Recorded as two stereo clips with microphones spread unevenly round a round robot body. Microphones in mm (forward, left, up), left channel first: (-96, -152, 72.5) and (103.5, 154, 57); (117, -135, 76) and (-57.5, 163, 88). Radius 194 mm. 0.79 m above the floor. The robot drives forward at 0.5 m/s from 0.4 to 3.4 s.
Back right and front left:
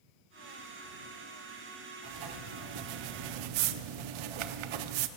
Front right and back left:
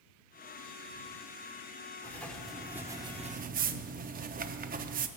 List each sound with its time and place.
2.0 s writing: 25° left, 1.1 m; by 5.1 s 55° left, 0.6 m